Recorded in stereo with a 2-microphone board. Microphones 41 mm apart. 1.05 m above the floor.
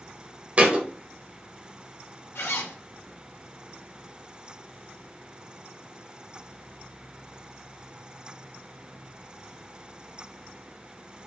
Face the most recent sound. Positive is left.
turn(degrees=85)